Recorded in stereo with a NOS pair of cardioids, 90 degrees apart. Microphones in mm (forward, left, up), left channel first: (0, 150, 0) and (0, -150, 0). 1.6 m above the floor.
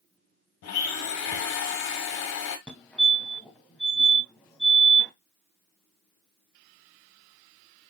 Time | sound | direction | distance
0.6 | a blender | 65° left | 1.4 m
2.7 | a fire alarm | 5° left | 1.9 m